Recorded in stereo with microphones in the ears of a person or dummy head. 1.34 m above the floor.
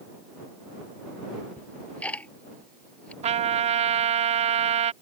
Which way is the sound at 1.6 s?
5° left (ahead or behind).